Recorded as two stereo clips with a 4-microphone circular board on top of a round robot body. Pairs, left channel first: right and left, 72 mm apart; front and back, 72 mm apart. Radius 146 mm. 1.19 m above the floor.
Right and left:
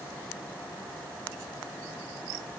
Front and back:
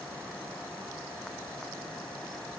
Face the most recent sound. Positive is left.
No sound to turn to.